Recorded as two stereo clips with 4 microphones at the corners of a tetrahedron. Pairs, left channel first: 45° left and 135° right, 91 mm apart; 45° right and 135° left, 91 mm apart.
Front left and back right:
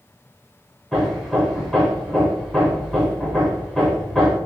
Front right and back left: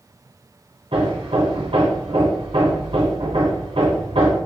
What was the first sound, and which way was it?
Hammering, 135° left.